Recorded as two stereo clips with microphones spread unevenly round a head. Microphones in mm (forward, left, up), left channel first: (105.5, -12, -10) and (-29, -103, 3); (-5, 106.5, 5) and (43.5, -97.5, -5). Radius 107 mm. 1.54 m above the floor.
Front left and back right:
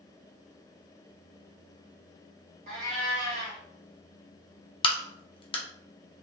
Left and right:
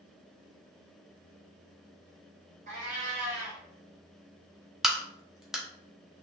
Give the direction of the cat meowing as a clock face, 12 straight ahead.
4 o'clock.